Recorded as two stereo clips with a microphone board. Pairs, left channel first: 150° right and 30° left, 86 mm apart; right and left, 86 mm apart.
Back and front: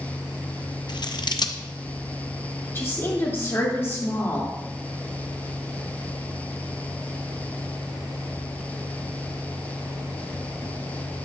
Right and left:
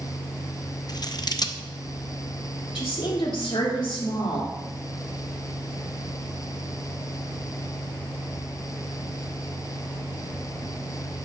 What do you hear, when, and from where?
0.9 s scissors: 125° right, 0.5 m
2.8 s a woman speaking: 90° right, 2.5 m